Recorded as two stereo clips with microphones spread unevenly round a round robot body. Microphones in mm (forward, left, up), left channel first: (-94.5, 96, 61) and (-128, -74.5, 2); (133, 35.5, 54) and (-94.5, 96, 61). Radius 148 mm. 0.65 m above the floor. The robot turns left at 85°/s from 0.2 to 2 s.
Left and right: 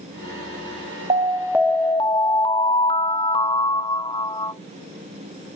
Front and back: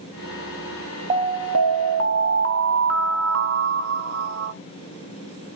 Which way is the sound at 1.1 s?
130° right.